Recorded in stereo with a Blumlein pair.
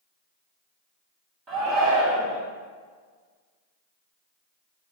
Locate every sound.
1.5 s a shout: 35° right, 1.6 m